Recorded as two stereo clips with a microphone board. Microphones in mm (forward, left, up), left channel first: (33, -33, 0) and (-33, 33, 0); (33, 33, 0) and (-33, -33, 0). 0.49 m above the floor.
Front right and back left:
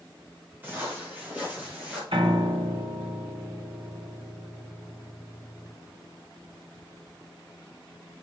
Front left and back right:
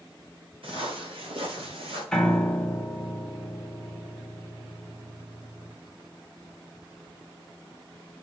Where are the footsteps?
155° right, 6.5 m; by 2.0 s 145° right, 6 m.